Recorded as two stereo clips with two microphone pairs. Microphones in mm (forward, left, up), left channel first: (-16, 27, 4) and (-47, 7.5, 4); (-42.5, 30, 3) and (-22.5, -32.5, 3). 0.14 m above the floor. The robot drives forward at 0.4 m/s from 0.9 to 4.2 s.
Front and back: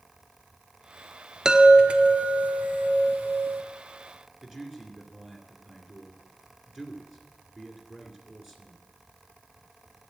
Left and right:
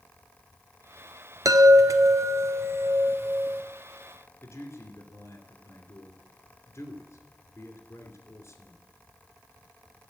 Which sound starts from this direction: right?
A chime, at 1.4 s.